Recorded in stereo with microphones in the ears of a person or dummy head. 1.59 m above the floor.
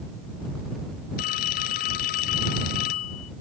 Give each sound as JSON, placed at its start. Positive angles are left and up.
{"t": 1.2, "sound": "a phone ringing", "side_deg": 45}